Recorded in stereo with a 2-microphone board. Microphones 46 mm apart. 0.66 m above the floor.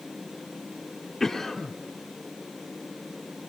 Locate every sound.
1.2 s a cough: 5° left (ahead or behind), 2.5 m